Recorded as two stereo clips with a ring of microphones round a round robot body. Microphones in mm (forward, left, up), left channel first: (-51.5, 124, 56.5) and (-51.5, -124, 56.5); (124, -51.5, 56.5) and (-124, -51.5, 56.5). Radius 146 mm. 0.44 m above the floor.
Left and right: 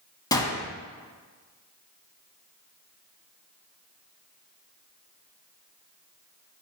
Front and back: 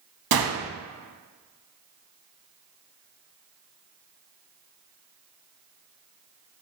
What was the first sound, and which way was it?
A gunshot, 165° left.